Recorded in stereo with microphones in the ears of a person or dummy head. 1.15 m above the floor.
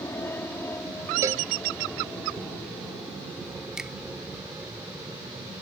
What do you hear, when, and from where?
0.0 s an aircraft: 15° left (ahead or behind); by 5.6 s 5° right (ahead or behind)
1.2 s a cowbell: 20° right (ahead or behind)
3.8 s a finger snap: 5° right (ahead or behind)